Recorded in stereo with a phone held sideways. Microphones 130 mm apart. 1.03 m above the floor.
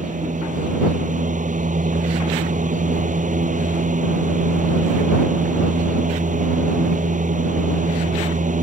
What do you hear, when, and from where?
0.0 s a fan: 80° right